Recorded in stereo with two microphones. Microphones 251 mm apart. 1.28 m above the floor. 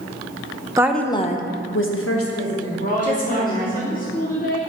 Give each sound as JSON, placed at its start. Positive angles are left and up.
{"t": 0.8, "sound": "a woman speaking", "side_deg": -15, "distance_m": 0.5}
{"t": 2.8, "sound": "a woman speaking", "side_deg": 35, "distance_m": 1.1}